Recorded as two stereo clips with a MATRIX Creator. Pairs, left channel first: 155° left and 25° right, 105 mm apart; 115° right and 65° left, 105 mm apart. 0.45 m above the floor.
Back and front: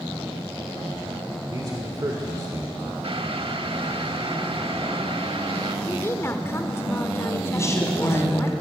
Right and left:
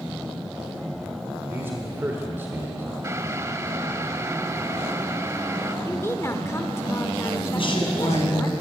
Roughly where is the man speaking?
Ahead.